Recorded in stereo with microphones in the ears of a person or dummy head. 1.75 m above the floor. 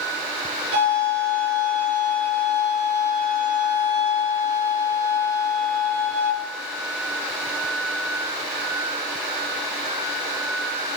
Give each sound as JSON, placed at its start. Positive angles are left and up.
{"t": 0.7, "sound": "a violin", "side_deg": -75, "distance_m": 6.5}